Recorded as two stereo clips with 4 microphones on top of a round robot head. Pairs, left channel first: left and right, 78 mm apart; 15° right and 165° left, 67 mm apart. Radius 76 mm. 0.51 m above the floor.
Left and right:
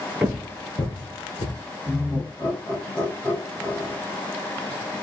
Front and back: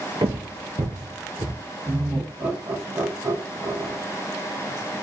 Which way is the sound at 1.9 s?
135° left.